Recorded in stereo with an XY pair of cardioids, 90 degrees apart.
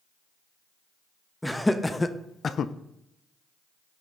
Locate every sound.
1.4 s laughter: 5° left, 1.5 m; by 2.7 s 80° left, 0.7 m